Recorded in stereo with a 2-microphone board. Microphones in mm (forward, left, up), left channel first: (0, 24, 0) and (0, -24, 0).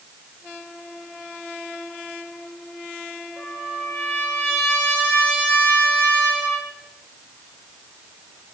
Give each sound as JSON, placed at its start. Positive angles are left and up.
{"t": 3.4, "sound": "a trumpet", "side_deg": 25, "distance_m": 7.5}